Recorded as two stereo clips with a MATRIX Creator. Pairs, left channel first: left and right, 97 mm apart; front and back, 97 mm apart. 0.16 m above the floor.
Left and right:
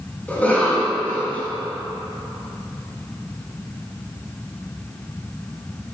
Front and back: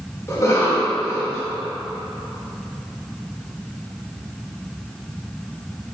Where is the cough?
25° left, 1.9 m.